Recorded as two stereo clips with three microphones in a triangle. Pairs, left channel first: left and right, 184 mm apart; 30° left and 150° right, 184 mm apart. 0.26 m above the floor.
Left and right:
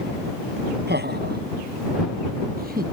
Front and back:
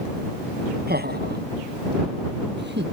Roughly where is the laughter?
Behind right.